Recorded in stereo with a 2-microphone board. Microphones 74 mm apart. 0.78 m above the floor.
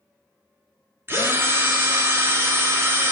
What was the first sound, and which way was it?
A drill, 30° right (ahead or behind).